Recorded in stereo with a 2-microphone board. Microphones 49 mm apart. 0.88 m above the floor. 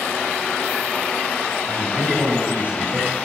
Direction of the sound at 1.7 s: 35° right (ahead or behind).